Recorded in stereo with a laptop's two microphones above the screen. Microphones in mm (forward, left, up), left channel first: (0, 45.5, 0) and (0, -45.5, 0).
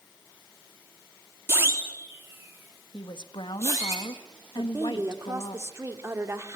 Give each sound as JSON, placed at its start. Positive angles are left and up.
{"t": 1.5, "sound": "a siren", "side_deg": -25, "distance_m": 3.0}
{"t": 2.9, "sound": "a woman speaking", "side_deg": 60, "distance_m": 1.5}
{"t": 4.6, "sound": "a woman speaking", "side_deg": -30, "distance_m": 2.5}